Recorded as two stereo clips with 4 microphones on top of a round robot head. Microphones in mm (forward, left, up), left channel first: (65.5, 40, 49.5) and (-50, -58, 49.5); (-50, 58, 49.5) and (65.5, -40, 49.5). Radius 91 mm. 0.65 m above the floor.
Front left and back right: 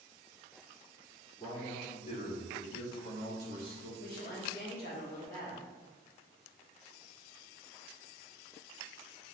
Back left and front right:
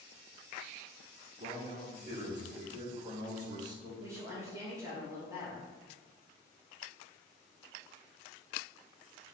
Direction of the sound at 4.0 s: 30° left.